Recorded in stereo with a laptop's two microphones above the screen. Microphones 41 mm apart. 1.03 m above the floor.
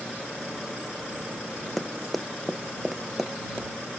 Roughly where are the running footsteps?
Centre.